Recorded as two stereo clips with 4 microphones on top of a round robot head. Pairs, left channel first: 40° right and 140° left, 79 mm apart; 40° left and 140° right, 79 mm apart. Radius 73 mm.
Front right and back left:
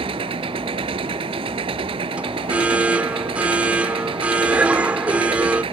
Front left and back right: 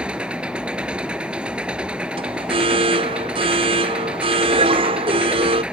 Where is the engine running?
140° left.